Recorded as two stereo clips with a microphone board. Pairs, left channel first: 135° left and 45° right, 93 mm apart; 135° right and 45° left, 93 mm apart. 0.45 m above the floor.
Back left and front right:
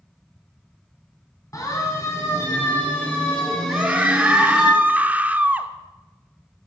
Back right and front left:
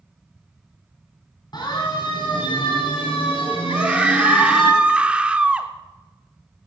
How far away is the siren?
About 4 m.